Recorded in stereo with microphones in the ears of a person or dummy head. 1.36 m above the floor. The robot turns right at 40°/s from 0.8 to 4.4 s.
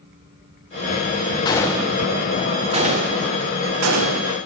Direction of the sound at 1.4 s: 20° left (ahead or behind).